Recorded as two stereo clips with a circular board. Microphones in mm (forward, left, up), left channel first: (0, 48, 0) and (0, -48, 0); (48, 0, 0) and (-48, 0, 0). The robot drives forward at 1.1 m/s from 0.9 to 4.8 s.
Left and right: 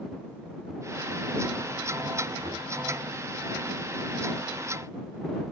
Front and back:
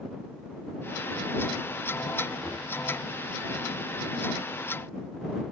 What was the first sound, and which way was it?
Knocking, 80° right.